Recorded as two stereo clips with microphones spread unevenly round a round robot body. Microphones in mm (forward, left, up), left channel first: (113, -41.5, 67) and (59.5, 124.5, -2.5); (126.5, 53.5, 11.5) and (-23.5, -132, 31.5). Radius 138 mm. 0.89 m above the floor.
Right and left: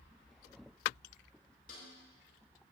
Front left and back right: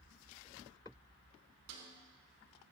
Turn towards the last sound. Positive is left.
turn(degrees=-130)